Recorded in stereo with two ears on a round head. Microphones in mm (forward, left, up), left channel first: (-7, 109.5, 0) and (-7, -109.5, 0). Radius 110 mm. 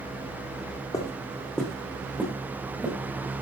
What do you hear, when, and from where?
0.9 s footsteps: 15° left (ahead or behind), 3 m; by 3.0 s 15° right (ahead or behind), 5.5 m